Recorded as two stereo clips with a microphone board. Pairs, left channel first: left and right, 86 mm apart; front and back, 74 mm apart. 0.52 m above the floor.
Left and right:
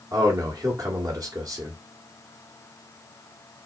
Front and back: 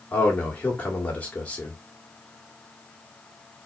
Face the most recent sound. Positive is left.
turn(degrees=-65)